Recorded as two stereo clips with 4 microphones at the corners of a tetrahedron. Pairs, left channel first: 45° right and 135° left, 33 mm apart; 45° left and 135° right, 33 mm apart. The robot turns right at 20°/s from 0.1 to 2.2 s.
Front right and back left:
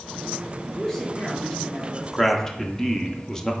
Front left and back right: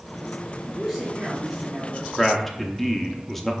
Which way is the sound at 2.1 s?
40° right.